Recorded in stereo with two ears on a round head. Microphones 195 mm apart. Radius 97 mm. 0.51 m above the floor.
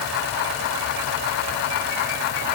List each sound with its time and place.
Only background noise.